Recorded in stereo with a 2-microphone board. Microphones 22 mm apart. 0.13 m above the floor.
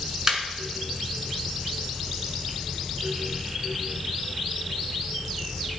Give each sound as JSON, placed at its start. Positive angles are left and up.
{"t": 0.3, "sound": "laughter", "side_deg": -25, "distance_m": 1.4}